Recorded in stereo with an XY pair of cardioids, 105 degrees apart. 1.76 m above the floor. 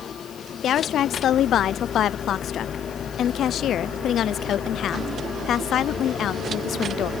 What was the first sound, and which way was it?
A woman speaking, 65° left.